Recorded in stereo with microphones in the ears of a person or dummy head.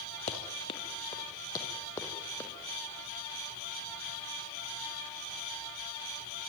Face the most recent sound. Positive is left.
turn(degrees=10)  # may be behind; listen again after turning